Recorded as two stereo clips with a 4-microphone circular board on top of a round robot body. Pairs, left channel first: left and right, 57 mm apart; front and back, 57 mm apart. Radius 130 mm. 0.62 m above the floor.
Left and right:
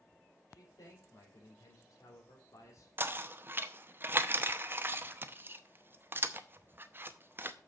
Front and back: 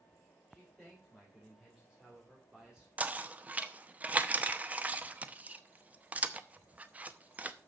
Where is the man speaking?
100° left, 3.5 m; by 2.9 s 105° left, 2.5 m.